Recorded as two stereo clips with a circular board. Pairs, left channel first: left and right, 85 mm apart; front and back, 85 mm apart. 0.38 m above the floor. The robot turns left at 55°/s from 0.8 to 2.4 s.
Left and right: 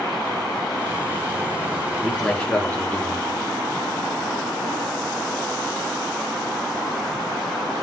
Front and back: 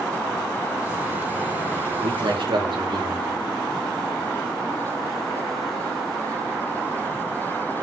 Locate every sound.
2.0 s a man speaking: 175° right, 5 m; by 3.4 s 165° left, 5 m